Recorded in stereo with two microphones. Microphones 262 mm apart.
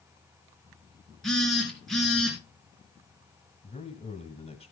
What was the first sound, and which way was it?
A phone buzzing, centre (ahead or behind).